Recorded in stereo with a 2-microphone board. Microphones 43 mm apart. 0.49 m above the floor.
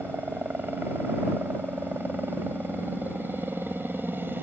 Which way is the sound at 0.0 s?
55° right (ahead or behind).